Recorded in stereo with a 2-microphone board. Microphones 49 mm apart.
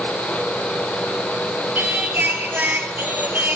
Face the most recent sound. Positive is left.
turn(degrees=-45)  # may be behind; listen again after turning